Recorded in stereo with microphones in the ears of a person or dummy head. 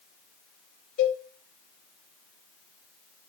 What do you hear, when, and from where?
1.0 s a cowbell: 45° left (ahead or behind), 4 m